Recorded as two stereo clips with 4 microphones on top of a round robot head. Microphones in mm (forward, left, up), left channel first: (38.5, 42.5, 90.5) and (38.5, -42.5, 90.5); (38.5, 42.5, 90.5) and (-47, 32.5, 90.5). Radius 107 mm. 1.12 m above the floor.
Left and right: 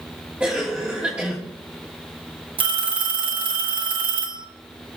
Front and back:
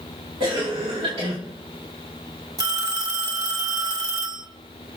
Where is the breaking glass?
I don't hear breaking glass.